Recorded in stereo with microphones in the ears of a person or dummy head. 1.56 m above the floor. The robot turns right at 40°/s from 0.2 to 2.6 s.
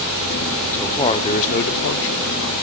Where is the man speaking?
5° left, 0.5 m; by 2.5 s 80° left, 0.5 m.